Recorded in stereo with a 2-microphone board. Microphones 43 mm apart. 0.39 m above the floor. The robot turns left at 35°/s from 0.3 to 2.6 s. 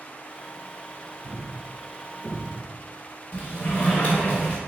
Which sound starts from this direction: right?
A thud, at 1.2 s.